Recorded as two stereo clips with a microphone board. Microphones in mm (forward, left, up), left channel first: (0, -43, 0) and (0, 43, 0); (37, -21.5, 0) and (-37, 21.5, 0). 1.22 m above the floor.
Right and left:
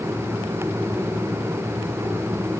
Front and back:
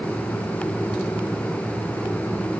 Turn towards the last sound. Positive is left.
No sound to turn to.